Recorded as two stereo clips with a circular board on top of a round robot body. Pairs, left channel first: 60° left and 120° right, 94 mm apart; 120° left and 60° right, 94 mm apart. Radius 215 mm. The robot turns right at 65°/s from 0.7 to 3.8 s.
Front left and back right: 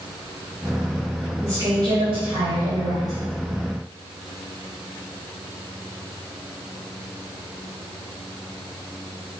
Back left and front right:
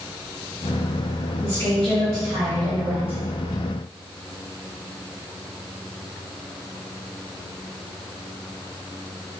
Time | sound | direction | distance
1.4 | a woman speaking | 165° left | 1.1 m